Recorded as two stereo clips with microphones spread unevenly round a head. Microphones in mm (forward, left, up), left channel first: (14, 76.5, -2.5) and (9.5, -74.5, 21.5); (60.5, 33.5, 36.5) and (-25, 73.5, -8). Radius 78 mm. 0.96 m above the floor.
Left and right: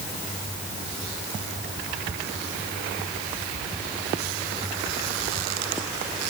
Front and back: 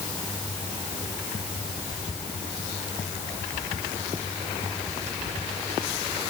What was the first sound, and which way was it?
Only background noise.